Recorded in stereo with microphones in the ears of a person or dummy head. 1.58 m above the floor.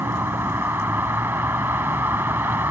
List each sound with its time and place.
0.0 s a vehicle: 10° right (ahead or behind)